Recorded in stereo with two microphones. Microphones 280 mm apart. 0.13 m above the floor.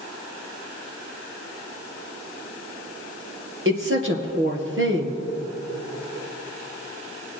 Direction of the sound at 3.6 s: 45° right (ahead or behind).